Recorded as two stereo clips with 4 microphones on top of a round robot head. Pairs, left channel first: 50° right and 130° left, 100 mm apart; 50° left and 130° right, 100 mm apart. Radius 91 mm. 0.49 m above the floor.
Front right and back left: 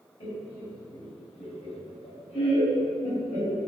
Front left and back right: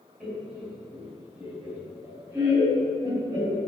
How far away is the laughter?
About 3.5 m.